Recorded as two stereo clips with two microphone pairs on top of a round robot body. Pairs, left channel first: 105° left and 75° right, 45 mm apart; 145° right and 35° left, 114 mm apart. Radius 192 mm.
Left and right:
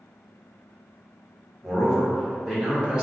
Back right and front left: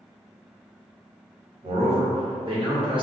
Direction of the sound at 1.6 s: 30° left.